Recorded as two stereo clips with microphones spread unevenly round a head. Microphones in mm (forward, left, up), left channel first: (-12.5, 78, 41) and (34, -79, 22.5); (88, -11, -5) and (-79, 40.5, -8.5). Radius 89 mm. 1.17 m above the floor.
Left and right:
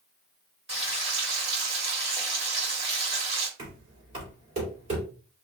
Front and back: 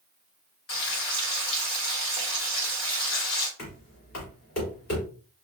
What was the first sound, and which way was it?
Frying, 25° right.